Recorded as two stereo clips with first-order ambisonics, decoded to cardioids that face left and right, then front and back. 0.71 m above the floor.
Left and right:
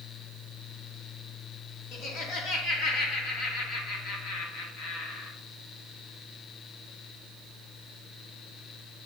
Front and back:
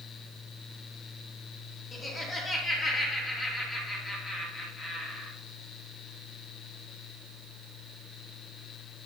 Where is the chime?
I don't hear a chime.